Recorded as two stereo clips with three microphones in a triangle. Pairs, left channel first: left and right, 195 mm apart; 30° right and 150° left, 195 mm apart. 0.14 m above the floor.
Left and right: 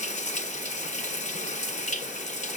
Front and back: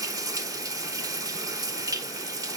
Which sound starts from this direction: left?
Running water, at 0.0 s.